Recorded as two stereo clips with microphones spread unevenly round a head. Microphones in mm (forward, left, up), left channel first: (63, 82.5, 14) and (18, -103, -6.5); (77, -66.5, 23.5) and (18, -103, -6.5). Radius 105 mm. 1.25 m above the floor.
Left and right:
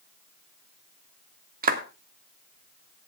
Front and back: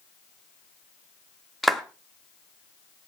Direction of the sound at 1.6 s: 60° right.